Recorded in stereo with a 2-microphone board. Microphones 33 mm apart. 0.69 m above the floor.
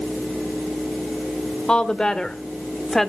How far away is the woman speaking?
About 2.0 m.